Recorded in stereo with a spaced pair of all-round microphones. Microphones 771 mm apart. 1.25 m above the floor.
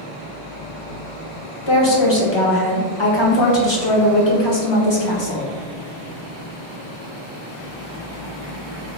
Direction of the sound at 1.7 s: 35° left (ahead or behind).